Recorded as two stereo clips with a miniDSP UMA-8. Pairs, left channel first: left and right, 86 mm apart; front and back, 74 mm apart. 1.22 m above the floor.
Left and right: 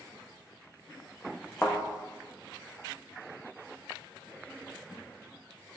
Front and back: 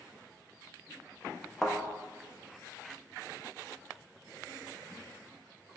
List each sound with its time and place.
1.6 s a thud: 80° left, 0.5 m